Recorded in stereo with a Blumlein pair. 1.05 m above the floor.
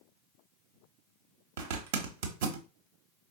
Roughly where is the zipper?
Ahead right.